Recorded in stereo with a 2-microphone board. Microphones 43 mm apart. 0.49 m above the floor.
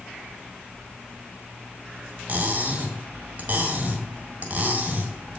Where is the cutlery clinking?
40° right (ahead or behind), 1.4 m.